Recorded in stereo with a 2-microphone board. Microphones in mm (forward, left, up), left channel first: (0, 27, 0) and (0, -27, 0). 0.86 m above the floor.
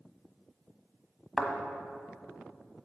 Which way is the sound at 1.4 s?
Centre (ahead or behind).